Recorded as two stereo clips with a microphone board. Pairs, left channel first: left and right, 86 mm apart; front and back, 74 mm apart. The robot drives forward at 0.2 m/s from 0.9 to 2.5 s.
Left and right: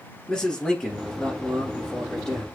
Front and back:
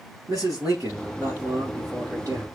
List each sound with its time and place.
0.3 s a man speaking: 160° left, 1.6 m; by 2.5 s 165° left, 1.8 m